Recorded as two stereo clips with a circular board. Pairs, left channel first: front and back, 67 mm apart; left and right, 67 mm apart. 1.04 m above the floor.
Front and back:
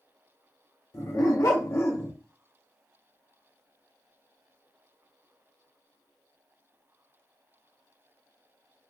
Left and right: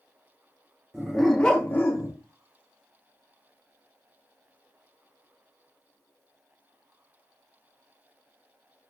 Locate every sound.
0.9 s a dog barking: 10° right, 0.7 m; by 2.1 s 65° left, 0.6 m